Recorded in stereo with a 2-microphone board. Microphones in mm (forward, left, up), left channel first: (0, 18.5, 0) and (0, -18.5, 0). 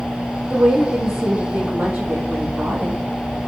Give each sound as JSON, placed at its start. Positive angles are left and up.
{"t": 0.5, "sound": "a woman speaking", "side_deg": -45, "distance_m": 3.5}